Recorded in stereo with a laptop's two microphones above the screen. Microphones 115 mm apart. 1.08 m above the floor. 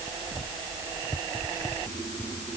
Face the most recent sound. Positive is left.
No sound to turn to.